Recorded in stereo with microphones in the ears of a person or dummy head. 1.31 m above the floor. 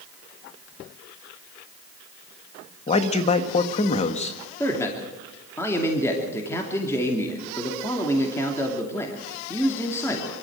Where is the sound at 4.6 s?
15° left (ahead or behind), 2.5 m.